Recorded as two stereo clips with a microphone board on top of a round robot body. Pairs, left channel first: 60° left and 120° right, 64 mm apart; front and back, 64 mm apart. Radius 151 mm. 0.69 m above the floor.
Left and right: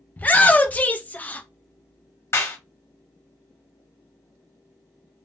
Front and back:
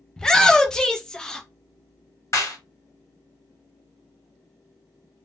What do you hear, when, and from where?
0.2 s a shout: 65° left, 0.6 m
2.3 s a clap: 25° left, 1.3 m